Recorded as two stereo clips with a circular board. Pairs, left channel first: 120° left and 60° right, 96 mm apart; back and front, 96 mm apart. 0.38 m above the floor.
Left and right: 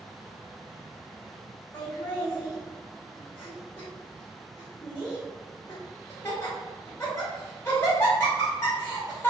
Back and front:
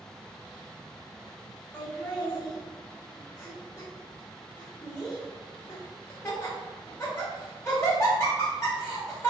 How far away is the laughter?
About 0.9 m.